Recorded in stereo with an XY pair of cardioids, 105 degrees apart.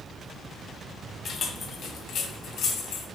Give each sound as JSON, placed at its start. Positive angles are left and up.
{"t": 1.2, "sound": "keys jangling", "azimuth_deg": 45, "distance_m": 1.6}